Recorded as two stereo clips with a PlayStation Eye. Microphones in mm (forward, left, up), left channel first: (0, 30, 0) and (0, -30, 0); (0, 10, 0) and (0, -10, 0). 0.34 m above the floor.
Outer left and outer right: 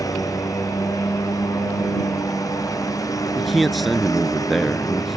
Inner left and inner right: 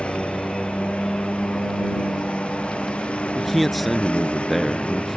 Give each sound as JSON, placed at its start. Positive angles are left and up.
{"t": 0.0, "sound": "a lawn mower", "side_deg": 80}
{"t": 3.4, "sound": "a man speaking", "side_deg": 0}